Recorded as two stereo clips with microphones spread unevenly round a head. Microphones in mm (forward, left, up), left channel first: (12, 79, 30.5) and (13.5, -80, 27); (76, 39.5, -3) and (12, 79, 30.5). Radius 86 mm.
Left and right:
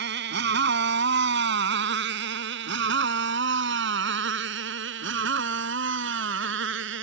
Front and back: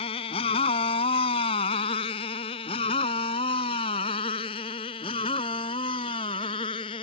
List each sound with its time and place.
0.0 s a motorcycle: 65° right; by 7.0 s 80° right